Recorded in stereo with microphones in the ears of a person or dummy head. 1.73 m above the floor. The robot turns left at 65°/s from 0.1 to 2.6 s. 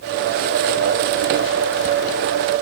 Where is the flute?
I don't hear a flute.